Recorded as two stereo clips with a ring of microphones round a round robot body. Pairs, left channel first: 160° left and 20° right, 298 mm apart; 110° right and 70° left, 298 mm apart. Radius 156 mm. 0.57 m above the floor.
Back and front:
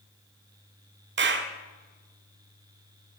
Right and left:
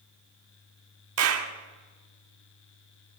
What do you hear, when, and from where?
1.2 s a clap: 30° left, 1.4 m